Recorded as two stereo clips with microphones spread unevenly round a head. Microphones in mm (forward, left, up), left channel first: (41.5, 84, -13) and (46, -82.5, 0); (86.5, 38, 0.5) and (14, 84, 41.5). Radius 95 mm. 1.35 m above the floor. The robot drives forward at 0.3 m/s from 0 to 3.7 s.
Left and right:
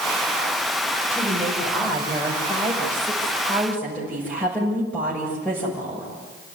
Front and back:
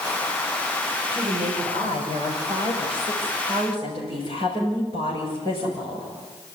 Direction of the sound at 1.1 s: 175° left.